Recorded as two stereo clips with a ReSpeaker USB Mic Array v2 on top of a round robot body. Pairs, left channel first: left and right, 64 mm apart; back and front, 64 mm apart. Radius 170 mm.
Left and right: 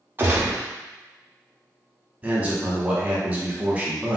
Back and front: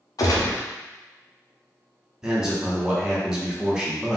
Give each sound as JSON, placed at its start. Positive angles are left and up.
{"t": 0.2, "sound": "a gunshot", "azimuth_deg": -150, "distance_m": 0.5}
{"t": 2.2, "sound": "a man speaking", "azimuth_deg": -65, "distance_m": 1.3}